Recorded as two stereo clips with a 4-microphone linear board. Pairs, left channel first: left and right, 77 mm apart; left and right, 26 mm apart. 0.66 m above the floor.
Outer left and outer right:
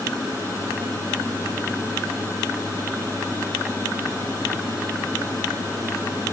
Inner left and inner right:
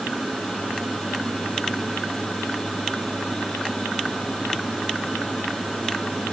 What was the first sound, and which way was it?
Only background noise.